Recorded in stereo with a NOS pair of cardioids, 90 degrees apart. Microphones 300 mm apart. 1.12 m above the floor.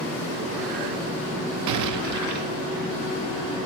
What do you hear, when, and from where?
1.7 s an explosion: 65° right, 0.8 m